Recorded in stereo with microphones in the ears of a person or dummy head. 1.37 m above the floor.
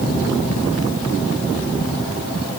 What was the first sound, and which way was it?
Only background noise.